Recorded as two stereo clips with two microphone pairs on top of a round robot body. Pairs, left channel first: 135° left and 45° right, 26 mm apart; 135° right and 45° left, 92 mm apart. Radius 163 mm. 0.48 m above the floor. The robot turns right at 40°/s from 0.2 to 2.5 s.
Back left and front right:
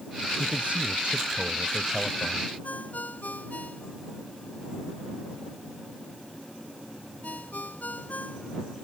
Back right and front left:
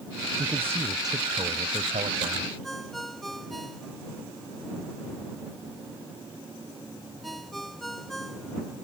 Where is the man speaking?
30° right; by 2.5 s 55° left.